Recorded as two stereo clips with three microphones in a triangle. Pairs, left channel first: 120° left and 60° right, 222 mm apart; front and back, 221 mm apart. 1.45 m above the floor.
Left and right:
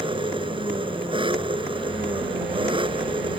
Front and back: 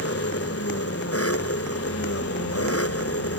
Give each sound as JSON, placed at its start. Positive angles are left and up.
{"t": 0.0, "sound": "an engine running", "azimuth_deg": 10}